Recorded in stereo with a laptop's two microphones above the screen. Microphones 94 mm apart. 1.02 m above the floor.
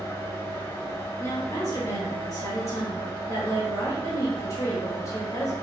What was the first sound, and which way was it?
A fan, 30° left (ahead or behind).